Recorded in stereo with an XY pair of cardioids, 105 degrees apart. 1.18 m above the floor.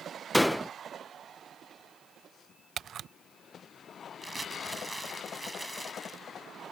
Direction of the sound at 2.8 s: 55° right.